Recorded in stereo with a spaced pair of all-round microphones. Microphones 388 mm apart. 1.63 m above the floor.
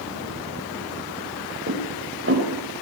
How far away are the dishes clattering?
About 5.5 m.